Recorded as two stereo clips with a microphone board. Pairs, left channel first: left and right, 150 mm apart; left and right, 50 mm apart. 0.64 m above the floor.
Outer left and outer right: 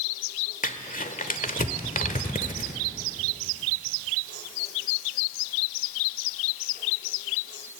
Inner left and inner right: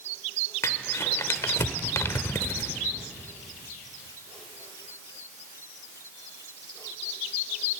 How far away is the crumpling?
About 1.5 m.